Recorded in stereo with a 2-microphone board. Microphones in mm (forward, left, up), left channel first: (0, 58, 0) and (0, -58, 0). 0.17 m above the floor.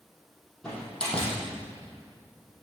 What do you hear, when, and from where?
0.6 s a door slam: 10° left (ahead or behind), 4 m